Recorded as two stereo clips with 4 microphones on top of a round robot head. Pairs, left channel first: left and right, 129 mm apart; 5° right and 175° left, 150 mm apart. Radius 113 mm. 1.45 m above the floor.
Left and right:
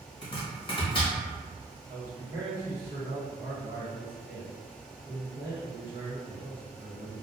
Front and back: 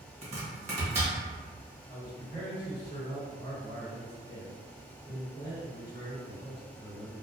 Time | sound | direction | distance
0.2 | chopping | 135° left | 1.0 m
1.9 | a man speaking | 65° right | 1.3 m